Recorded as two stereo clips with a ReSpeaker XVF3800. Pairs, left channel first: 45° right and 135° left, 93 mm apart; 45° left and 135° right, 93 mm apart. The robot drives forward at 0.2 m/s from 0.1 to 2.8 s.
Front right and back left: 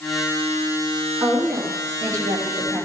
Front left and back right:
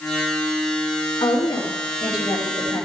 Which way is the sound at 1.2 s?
85° left.